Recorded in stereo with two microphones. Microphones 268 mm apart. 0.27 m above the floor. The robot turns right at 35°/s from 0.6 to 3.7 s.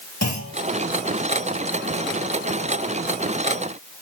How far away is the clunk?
About 4.5 m.